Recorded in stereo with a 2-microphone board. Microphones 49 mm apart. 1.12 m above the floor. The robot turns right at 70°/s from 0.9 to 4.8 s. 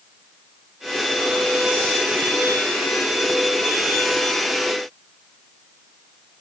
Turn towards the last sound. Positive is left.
No sound to turn to.